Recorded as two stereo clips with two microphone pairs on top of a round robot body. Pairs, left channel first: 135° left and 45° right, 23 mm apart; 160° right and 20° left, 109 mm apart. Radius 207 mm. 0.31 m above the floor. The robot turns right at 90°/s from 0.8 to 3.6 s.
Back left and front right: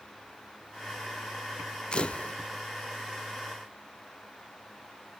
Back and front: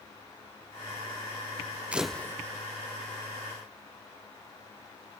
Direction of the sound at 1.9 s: 95° left.